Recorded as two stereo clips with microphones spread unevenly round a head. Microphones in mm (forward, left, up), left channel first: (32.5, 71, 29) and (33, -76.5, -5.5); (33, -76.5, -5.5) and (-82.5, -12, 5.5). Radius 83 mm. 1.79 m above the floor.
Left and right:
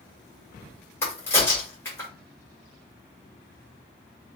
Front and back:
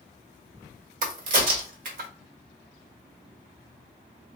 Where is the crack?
165° left, 1.1 m.